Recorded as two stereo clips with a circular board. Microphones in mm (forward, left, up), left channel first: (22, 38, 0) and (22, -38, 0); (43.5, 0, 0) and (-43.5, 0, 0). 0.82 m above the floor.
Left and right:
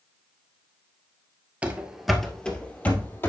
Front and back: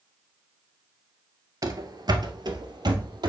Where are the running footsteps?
155° right, 1.1 m; by 3.3 s 150° left, 1.7 m.